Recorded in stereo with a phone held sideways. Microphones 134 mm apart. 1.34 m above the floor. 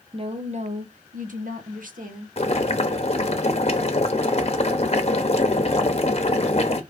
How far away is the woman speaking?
About 0.9 m.